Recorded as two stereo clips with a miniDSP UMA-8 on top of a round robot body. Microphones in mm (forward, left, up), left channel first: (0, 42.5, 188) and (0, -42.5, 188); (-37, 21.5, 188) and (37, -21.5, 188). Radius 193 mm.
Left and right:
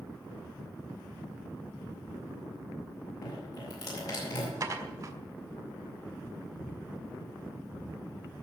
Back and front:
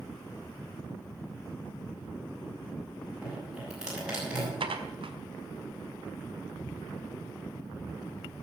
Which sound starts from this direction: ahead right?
Dishes clattering, at 4.6 s.